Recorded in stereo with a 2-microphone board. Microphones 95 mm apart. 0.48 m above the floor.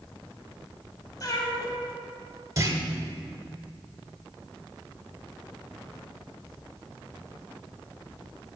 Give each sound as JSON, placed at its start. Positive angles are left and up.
{"t": 1.2, "sound": "a cat meowing", "side_deg": 40, "distance_m": 1.6}
{"t": 2.6, "sound": "a clunk", "side_deg": -35, "distance_m": 1.0}